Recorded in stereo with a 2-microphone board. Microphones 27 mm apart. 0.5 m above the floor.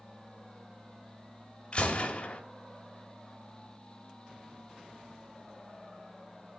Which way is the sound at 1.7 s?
35° left (ahead or behind).